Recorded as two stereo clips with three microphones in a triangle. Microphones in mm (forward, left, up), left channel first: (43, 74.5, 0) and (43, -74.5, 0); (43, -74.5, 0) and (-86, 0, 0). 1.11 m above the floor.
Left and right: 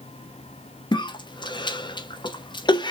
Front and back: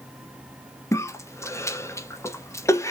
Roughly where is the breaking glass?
No breaking glass in this recording.